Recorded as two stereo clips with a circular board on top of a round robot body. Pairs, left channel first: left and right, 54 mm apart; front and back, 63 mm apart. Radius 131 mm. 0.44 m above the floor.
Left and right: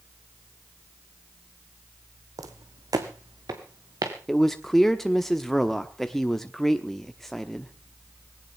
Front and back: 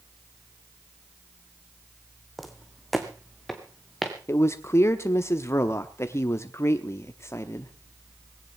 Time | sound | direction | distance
2.4 | footsteps | 90° right | 1.2 m
4.3 | a man speaking | 5° left | 1.1 m